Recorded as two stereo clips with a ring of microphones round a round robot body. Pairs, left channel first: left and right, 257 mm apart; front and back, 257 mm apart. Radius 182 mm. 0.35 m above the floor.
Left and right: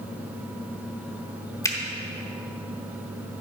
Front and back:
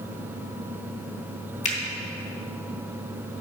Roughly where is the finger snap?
Ahead left.